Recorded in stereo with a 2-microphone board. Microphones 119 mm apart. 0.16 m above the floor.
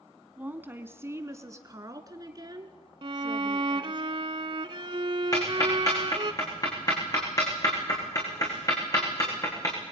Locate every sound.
0.4 s a woman speaking: 15° right (ahead or behind), 1.7 m; by 4.0 s 40° right (ahead or behind), 3.5 m
3.0 s a violin: 45° right (ahead or behind), 0.7 m
5.3 s ticking: 30° left (ahead or behind), 8.5 m